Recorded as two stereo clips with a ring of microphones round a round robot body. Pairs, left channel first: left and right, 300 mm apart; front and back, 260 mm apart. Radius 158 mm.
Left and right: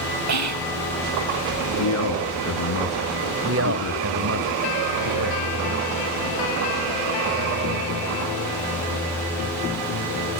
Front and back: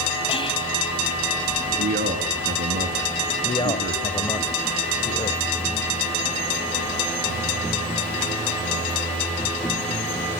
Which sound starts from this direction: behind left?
A man speaking, at 1.8 s.